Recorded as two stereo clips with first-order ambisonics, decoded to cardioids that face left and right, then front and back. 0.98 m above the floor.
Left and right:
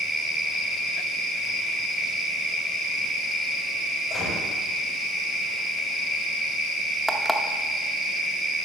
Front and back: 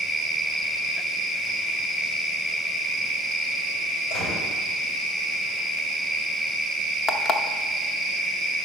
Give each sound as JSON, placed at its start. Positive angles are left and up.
{"t": 4.1, "sound": "a gunshot", "azimuth_deg": 25, "distance_m": 4.5}
{"t": 7.1, "sound": "an alarm clock", "azimuth_deg": 0, "distance_m": 0.5}